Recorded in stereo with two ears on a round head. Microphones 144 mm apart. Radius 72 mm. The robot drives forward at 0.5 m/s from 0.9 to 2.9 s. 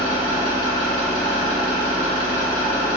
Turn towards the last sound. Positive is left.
turn(degrees=55)  # may be behind; listen again after turning